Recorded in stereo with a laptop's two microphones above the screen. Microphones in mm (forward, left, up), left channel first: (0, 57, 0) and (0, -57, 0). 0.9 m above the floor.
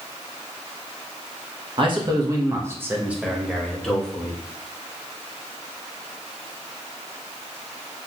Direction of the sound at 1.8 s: 45° right (ahead or behind).